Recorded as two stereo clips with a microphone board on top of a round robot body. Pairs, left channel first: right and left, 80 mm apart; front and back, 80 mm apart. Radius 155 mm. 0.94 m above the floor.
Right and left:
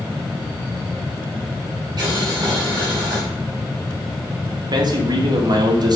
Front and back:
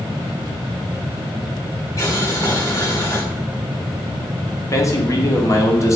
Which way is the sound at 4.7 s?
55° left.